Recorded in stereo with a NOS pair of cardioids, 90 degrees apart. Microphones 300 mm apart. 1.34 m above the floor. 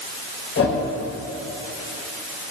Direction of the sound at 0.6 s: 45° left.